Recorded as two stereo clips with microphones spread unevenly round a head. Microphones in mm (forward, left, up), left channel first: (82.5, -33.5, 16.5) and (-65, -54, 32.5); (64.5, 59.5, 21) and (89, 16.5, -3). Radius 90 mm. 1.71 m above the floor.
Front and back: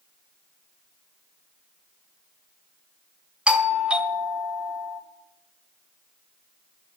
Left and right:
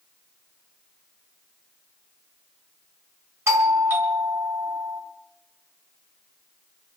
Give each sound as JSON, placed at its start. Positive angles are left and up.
{"t": 3.5, "sound": "a doorbell", "azimuth_deg": -85, "distance_m": 1.3}